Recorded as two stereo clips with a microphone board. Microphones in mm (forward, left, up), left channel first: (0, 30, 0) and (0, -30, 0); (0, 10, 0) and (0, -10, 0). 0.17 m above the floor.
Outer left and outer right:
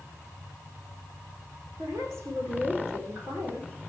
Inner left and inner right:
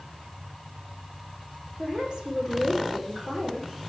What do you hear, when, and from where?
1.8 s a woman speaking: 50° right (ahead or behind), 8.5 m